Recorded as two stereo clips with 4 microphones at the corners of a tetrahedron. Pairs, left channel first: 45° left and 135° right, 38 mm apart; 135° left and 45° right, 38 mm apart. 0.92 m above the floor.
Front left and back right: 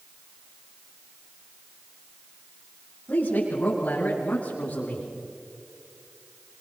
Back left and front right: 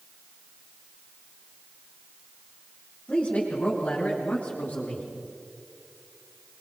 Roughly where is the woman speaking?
Left.